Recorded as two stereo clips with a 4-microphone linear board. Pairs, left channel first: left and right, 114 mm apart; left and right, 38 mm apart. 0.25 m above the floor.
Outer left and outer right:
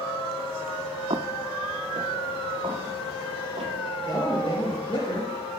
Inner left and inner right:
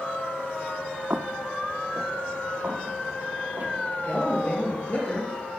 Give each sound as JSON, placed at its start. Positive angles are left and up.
{"t": 1.1, "sound": "footsteps", "side_deg": -60, "distance_m": 0.6}
{"t": 4.0, "sound": "a man speaking", "side_deg": 50, "distance_m": 4.5}